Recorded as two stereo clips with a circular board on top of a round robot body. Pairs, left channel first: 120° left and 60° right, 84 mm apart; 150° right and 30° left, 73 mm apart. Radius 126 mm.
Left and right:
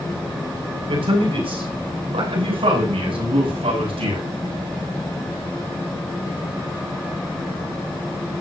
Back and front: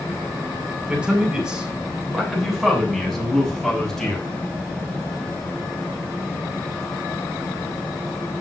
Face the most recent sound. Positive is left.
turn(degrees=-65)